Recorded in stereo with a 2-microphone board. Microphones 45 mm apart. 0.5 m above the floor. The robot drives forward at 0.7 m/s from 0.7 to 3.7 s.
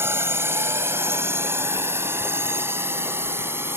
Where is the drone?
65° right (ahead or behind); by 3.8 s 60° right (ahead or behind).